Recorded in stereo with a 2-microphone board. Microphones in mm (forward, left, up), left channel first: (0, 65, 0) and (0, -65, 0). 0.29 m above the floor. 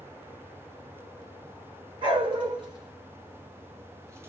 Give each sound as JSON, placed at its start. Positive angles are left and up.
{"t": 2.0, "sound": "a dog barking", "side_deg": -40, "distance_m": 2.0}